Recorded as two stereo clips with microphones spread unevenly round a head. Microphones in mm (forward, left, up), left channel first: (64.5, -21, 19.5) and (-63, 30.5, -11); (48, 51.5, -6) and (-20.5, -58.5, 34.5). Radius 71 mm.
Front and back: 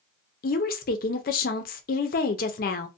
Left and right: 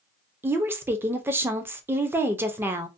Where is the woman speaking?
35° right, 0.5 m.